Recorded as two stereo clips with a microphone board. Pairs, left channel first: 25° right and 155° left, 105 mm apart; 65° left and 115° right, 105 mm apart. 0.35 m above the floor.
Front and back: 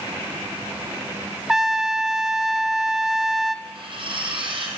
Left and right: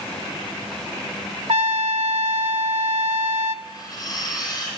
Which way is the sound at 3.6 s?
120° left.